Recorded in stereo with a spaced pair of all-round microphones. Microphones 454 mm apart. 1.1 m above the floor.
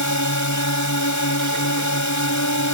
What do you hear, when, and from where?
0.0 s a drone: 40° left (ahead or behind)